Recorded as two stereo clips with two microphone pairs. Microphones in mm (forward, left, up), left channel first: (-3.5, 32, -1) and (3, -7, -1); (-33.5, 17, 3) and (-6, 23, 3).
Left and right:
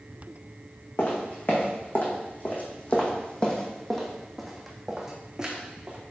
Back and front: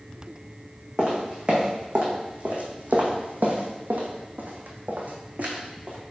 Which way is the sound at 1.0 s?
75° left.